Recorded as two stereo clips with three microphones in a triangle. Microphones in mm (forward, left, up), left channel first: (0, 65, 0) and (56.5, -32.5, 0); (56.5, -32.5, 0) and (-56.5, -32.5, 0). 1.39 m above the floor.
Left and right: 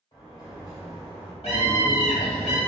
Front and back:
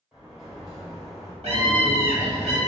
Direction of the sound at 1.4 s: 150° left.